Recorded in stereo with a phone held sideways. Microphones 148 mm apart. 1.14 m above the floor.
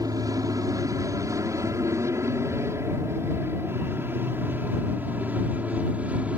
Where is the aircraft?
25° right (ahead or behind); by 6.4 s 10° right (ahead or behind).